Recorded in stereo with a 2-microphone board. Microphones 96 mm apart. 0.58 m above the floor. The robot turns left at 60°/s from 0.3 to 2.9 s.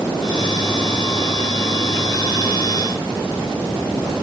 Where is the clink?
I don't hear a clink.